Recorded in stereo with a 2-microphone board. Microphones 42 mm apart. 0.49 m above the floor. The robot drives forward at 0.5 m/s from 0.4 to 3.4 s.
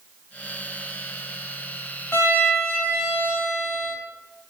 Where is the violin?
70° left (ahead or behind), 2 m; by 4.0 s 65° left (ahead or behind), 2 m.